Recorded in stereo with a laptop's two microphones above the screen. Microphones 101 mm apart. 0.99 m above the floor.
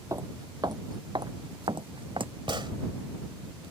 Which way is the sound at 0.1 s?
35° right (ahead or behind).